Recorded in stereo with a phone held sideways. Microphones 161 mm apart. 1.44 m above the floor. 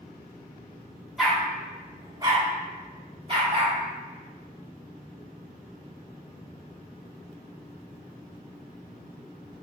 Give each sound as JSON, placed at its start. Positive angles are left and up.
{"t": 1.2, "sound": "a dog barking", "side_deg": 0, "distance_m": 1.0}